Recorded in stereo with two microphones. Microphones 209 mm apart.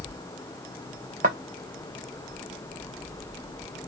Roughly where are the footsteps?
Right.